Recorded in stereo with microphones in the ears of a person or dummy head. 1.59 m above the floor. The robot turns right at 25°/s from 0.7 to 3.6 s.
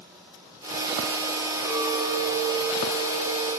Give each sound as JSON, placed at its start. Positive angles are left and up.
{"t": 1.6, "sound": "a clink", "azimuth_deg": 100, "distance_m": 1.6}